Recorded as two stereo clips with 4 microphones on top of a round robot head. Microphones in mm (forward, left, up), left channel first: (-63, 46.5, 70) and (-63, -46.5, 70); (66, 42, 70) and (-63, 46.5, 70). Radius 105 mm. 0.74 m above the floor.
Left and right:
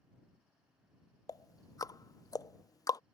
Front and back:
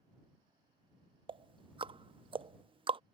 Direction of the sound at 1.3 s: 135° left.